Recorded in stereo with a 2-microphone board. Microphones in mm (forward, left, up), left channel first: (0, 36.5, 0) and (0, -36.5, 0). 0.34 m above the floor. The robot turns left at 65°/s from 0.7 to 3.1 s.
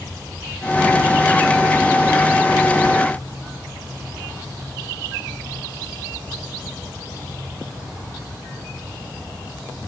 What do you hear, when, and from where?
Only background noise.